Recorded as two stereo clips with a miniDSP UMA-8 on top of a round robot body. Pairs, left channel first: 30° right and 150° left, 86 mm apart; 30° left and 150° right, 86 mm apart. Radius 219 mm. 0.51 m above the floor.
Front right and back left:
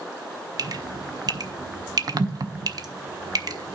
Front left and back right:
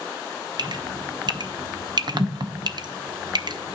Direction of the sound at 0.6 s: 175° right.